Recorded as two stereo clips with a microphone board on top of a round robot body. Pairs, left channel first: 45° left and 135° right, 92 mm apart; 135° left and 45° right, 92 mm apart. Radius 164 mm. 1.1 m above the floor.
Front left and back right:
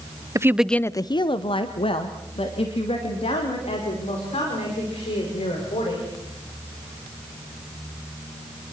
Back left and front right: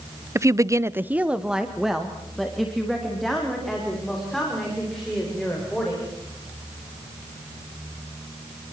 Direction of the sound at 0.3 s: 95° right.